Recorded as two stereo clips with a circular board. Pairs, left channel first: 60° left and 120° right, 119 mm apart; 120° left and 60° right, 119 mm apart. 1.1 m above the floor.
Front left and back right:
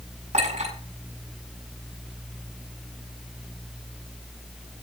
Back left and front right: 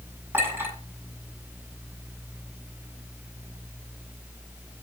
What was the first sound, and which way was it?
A clink, 130° right.